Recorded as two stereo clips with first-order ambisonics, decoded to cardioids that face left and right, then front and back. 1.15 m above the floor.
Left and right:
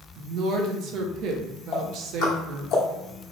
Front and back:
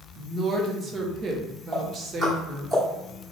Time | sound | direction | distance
0.2 | a woman speaking | 115° right | 0.6 m
1.7 | ticking | 95° left | 1.0 m